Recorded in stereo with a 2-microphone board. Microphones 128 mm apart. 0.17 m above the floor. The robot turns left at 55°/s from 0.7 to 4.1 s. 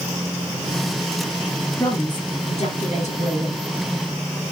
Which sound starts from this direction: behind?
A woman speaking, at 1.8 s.